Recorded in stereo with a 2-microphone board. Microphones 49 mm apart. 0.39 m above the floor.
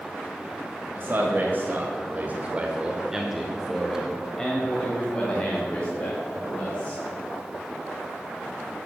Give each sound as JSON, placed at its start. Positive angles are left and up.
{"t": 0.9, "sound": "a man speaking", "side_deg": -40, "distance_m": 1.7}